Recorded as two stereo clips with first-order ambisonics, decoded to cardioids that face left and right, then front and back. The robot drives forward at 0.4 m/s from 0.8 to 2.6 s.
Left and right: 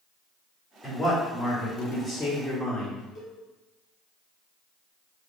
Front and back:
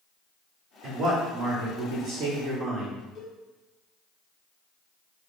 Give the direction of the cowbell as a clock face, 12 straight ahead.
11 o'clock.